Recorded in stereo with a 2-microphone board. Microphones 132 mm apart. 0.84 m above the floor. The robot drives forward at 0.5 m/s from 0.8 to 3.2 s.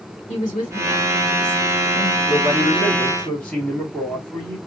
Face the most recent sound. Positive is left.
turn(degrees=10)  # may be behind; listen again after turning